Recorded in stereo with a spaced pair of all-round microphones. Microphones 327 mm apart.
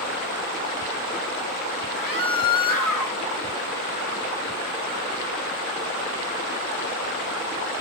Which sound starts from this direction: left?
A scream, at 1.9 s.